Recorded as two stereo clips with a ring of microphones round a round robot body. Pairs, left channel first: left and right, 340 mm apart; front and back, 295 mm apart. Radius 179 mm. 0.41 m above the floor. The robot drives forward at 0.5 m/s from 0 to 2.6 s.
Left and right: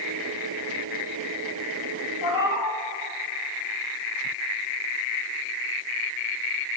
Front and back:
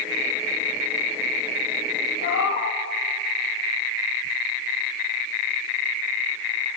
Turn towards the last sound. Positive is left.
turn(degrees=55)